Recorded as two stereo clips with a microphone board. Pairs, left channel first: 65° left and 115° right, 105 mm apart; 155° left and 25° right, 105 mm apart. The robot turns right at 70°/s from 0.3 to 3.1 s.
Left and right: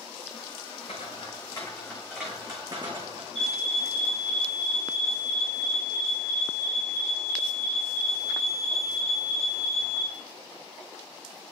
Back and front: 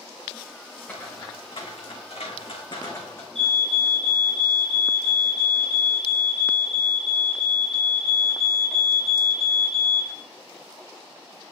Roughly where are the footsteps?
Left.